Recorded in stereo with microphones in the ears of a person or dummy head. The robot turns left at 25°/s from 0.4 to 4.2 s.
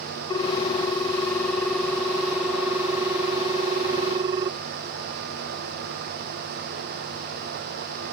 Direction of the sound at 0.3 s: 20° left (ahead or behind).